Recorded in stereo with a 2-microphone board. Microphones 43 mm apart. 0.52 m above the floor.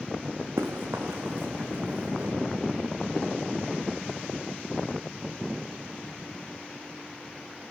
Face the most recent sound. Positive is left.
turn(degrees=-80)